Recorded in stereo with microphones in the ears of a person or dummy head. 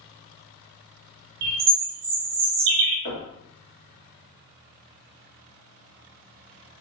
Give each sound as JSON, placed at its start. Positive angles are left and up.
{"t": 1.4, "sound": "a bird", "side_deg": -60, "distance_m": 0.8}
{"t": 3.0, "sound": "knocking", "side_deg": 65, "distance_m": 2.0}